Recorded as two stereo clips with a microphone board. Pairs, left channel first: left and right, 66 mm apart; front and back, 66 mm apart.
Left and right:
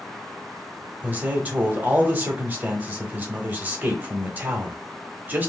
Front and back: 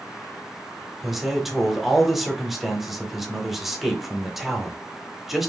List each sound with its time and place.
1.0 s a man speaking: 95° right, 0.9 m